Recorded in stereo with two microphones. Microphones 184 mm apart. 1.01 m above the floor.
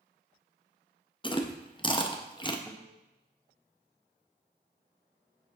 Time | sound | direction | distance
1.2 | chewing | 25° left (ahead or behind) | 0.7 m
2.7 | a guitar | 5° left (ahead or behind) | 0.8 m